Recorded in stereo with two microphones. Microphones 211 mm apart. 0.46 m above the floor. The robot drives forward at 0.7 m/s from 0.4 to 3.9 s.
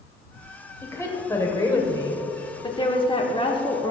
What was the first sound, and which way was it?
A woman speaking, 10° left (ahead or behind).